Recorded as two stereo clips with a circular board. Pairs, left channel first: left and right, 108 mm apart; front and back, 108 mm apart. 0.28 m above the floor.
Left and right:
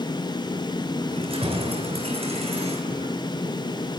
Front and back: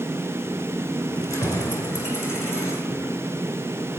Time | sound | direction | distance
1.1 | keys jangling | 60° right | 2.5 m